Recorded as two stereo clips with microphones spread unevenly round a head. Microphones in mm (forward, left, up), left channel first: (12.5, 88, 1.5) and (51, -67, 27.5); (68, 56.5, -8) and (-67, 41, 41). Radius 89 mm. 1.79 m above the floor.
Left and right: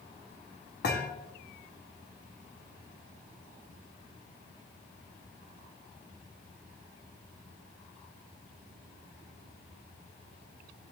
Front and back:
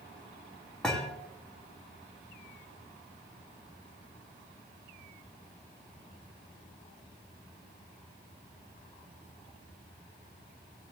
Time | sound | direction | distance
0.8 | a thud | 110° left | 1.9 m